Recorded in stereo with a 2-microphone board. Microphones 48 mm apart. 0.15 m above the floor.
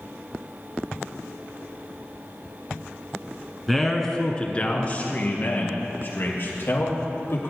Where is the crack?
No crack in this recording.